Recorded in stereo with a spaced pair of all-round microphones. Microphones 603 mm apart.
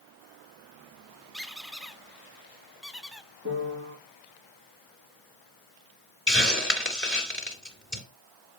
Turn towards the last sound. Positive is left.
turn(degrees=20)  # may be behind; listen again after turning